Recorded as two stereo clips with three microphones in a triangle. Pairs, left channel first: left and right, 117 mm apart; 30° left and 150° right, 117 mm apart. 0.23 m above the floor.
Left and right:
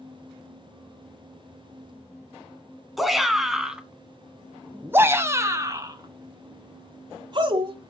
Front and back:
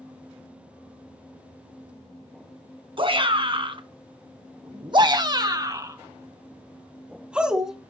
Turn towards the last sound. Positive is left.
turn(degrees=-65)